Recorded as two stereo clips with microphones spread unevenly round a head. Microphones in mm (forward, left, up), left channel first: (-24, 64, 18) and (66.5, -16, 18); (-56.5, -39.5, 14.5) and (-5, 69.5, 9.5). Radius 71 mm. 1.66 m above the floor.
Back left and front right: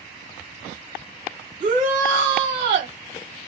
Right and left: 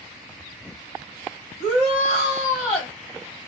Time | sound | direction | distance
1.6 | a shout | 25° right | 1.1 m